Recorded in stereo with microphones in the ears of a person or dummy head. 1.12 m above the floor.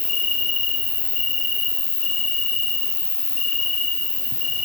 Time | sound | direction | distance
0.0 | an insect | 35° left (ahead or behind) | 1.0 m